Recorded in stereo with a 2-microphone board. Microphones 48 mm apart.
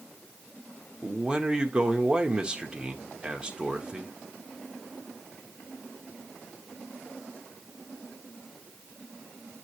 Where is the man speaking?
15° right (ahead or behind), 1.0 m.